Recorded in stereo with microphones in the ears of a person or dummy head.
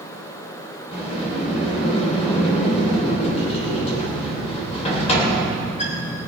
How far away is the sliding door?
About 3 m.